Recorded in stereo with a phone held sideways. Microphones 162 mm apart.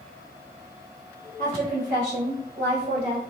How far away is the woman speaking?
About 1.1 m.